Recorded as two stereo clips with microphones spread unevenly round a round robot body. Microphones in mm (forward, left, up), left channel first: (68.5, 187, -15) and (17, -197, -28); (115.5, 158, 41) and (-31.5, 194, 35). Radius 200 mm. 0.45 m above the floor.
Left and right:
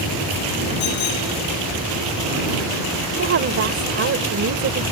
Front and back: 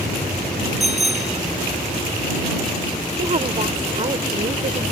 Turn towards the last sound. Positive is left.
turn(degrees=-150)